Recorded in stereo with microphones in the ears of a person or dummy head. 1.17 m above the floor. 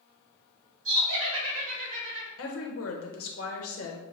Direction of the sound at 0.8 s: 70° right (ahead or behind).